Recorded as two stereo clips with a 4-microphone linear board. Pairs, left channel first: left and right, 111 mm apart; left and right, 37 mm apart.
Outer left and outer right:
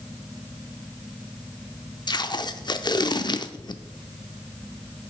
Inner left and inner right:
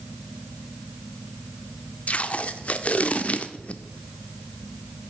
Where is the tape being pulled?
40° left (ahead or behind), 0.5 m.